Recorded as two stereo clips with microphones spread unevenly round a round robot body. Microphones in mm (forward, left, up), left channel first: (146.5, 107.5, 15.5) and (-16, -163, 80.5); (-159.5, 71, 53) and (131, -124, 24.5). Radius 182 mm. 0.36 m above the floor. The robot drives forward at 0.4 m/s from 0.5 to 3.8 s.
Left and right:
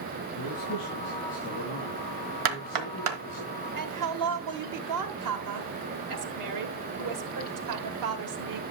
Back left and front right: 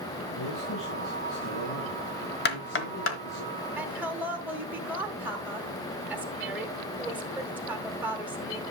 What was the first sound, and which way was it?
A man speaking, 110° left.